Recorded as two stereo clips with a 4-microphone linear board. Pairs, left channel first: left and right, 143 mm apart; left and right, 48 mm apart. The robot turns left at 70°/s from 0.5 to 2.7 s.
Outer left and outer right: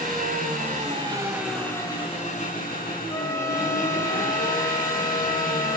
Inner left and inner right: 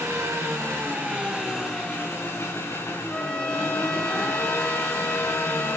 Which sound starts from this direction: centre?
A trumpet, at 3.1 s.